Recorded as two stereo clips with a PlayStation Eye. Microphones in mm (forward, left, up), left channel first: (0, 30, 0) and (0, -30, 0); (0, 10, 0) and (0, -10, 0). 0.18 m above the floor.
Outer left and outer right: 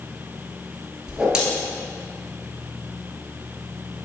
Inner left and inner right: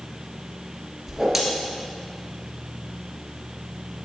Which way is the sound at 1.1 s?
10° right (ahead or behind).